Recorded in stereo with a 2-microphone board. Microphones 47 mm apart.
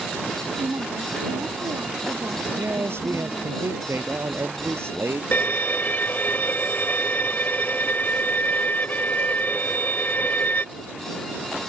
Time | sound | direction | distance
0.6 | a woman speaking | 80° right | ?
2.6 | a man speaking | 65° right (ahead or behind) | ?
5.3 | a violin | 45° left (ahead or behind) | ?